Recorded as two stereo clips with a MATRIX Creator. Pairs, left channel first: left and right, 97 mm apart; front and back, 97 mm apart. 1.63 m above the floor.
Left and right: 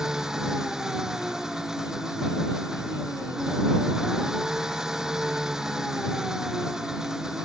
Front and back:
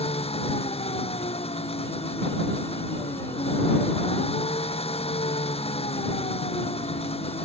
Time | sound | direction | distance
0.0 | an engine running | 5° right | ?